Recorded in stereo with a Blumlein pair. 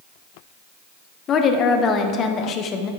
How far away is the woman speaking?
About 0.8 m.